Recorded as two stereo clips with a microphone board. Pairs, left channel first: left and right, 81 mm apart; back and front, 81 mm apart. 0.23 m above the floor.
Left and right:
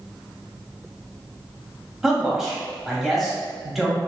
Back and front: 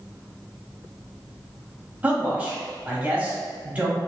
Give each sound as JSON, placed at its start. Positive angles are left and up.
{"t": 2.0, "sound": "a man speaking", "azimuth_deg": -10, "distance_m": 0.9}